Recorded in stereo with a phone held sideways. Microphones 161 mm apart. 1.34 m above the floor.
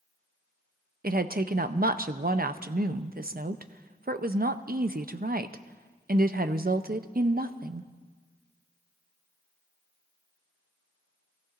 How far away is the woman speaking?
About 0.6 m.